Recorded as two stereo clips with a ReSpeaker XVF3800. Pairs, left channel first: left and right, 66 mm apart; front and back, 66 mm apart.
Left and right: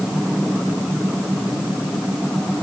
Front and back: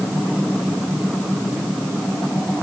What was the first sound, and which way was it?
Only background noise.